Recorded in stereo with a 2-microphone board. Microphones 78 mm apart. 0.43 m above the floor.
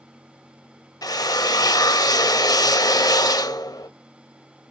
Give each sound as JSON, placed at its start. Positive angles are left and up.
{"t": 1.0, "sound": "a drill", "side_deg": 60, "distance_m": 0.9}